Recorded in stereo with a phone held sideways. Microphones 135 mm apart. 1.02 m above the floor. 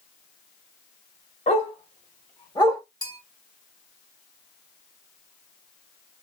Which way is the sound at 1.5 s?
55° left (ahead or behind).